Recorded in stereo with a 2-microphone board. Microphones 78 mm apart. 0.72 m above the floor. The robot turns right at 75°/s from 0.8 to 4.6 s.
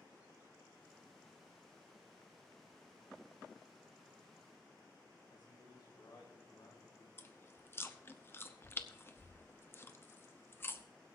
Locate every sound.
5.3 s a man speaking: 75° left (ahead or behind), 3.5 m
7.2 s chewing: 30° left (ahead or behind), 0.7 m